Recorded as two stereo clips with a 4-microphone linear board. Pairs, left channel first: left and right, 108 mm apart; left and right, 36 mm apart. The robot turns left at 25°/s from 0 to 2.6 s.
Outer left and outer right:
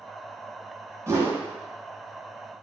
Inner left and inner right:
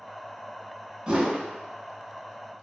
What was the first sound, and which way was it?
A whoosh, 30° right (ahead or behind).